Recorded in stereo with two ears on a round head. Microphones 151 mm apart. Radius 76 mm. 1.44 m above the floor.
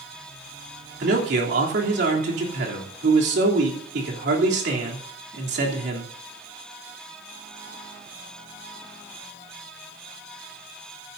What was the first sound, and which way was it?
A man speaking, 70° right (ahead or behind).